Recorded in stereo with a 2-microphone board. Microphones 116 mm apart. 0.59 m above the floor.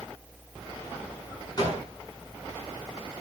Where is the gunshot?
35° left (ahead or behind), 7.5 m.